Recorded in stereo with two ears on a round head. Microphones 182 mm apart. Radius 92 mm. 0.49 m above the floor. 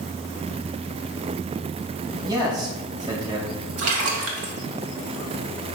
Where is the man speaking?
20° right (ahead or behind), 3 m.